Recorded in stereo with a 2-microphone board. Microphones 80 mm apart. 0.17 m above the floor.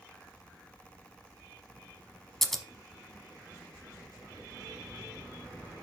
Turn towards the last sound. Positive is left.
turn(degrees=5)  # may be behind; listen again after turning